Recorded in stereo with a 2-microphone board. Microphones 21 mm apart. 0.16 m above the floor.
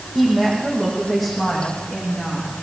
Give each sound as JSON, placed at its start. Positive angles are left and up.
{"t": 0.1, "sound": "a woman speaking", "side_deg": -10, "distance_m": 8.5}